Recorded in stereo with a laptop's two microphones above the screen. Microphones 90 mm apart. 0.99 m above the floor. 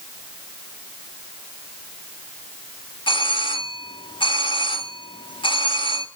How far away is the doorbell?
About 2.5 m.